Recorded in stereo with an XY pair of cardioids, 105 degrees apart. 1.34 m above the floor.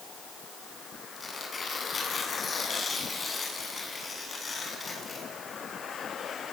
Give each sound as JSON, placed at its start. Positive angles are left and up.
{"t": 1.2, "sound": "tearing paper", "azimuth_deg": 35, "distance_m": 7.5}